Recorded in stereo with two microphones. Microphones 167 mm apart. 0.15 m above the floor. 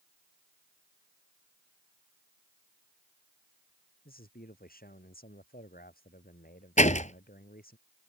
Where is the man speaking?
65° left (ahead or behind).